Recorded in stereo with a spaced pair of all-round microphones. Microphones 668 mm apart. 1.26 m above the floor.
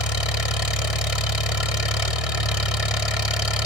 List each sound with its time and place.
0.0 s an engine running: 60° left (ahead or behind), 1.9 m